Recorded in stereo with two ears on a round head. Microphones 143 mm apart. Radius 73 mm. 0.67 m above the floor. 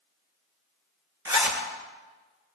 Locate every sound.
1.2 s a zipper: 20° right (ahead or behind), 2.5 m